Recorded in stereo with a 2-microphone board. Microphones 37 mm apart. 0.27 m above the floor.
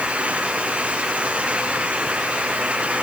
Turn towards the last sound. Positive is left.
No sound to turn to.